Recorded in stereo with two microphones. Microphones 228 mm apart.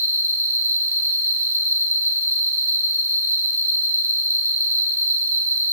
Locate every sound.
0.0 s an insect: 35° right (ahead or behind), 3 m